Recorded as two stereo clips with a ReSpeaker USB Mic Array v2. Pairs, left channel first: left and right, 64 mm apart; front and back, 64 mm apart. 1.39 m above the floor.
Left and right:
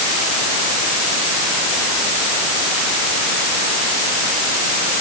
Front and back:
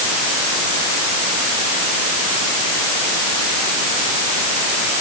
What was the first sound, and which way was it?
Only background noise.